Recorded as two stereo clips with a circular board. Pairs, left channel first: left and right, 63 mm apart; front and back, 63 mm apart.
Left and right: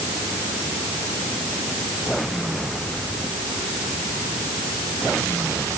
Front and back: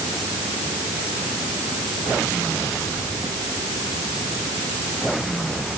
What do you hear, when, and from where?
Only background noise.